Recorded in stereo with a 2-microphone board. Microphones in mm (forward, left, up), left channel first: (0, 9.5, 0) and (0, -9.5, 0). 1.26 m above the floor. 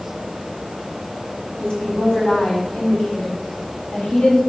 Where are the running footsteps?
No running footsteps in this recording.